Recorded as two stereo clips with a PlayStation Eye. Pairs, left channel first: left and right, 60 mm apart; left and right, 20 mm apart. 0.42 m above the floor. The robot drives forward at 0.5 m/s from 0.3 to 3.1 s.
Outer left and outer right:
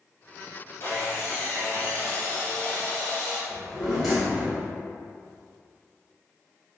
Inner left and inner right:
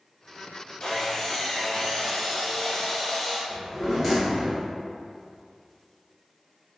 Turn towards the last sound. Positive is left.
turn(degrees=0)  # may be behind; listen again after turning